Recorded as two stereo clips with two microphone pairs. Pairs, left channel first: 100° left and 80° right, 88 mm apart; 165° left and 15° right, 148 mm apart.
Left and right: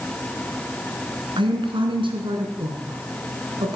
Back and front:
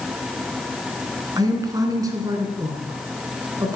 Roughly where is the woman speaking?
Right.